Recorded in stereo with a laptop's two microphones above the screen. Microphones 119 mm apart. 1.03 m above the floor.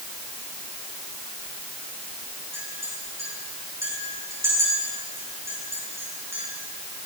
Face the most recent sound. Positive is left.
turn(degrees=-25)  # may be behind; listen again after turning